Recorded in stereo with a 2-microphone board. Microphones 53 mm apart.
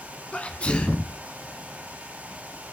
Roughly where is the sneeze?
Left.